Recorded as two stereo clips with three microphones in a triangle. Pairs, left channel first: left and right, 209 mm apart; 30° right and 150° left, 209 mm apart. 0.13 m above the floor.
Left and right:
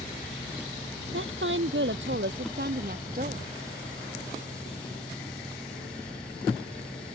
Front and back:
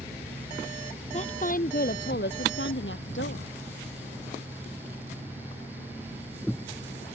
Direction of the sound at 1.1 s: 85° right.